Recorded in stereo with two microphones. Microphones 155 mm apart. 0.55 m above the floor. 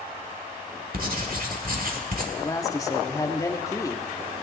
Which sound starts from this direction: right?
Writing, at 0.9 s.